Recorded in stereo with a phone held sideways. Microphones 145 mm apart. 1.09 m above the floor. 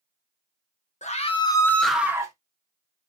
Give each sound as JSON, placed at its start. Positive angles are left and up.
{"t": 1.0, "sound": "a scream", "side_deg": 50, "distance_m": 0.7}